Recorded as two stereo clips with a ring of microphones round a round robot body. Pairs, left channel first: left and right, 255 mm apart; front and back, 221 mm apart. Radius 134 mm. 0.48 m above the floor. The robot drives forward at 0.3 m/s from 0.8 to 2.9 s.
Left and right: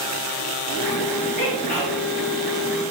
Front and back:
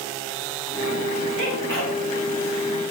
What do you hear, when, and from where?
1.4 s a sneeze: 175° left, 3 m